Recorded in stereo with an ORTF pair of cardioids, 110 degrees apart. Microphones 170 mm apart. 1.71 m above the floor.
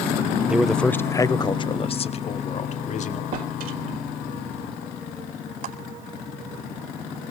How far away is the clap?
About 4.5 m.